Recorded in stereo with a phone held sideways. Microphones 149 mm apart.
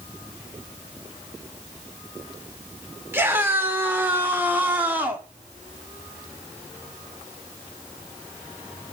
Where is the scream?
15° right (ahead or behind), 4.5 m; by 5.3 s 10° right (ahead or behind), 3.5 m.